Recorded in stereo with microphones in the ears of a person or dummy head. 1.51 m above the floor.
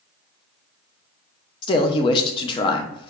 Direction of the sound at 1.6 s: 30° left (ahead or behind).